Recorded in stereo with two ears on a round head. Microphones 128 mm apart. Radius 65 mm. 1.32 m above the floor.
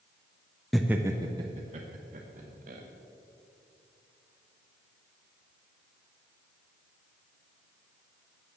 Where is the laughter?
Centre (ahead or behind), 0.5 m; by 2.8 s 60° right (ahead or behind), 1.5 m.